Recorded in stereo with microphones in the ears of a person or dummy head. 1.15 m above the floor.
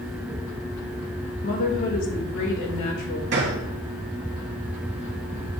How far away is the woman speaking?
About 1.9 m.